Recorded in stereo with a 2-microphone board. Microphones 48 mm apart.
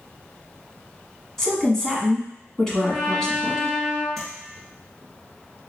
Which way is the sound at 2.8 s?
5° left (ahead or behind).